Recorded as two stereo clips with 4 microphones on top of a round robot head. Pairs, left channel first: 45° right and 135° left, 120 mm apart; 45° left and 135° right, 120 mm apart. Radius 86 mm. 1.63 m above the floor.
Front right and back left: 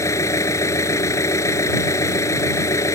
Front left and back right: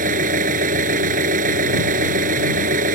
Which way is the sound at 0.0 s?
115° right.